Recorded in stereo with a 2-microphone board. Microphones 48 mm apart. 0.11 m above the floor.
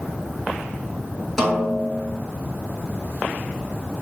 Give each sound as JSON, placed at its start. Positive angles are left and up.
{"t": 1.4, "sound": "a snare drum", "side_deg": 5, "distance_m": 0.8}